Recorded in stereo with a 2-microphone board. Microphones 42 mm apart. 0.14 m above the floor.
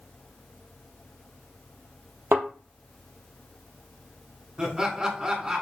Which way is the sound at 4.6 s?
20° right (ahead or behind).